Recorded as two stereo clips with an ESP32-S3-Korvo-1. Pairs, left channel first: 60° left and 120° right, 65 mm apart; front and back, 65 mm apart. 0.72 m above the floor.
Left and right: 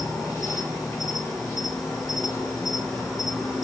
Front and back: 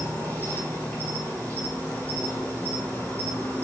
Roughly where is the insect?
Ahead left.